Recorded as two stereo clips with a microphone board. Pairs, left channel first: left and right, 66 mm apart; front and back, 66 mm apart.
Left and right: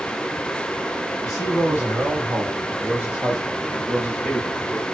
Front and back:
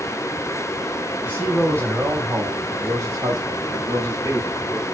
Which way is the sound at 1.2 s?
120° right.